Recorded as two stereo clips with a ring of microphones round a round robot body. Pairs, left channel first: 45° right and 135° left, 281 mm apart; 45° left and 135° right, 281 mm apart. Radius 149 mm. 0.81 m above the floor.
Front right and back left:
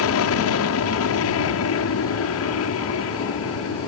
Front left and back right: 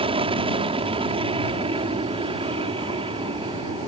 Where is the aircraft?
65° right.